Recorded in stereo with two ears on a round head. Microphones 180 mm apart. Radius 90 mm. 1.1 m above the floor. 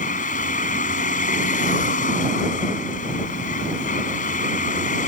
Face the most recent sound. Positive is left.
turn(degrees=40)  # may be behind; listen again after turning